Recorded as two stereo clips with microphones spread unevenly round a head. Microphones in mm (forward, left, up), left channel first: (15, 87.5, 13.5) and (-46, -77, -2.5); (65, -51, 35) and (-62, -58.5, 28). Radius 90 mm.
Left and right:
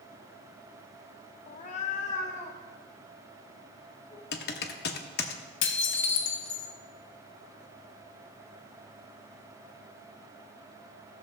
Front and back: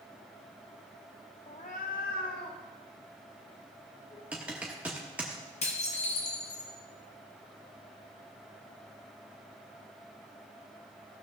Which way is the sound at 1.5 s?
35° left.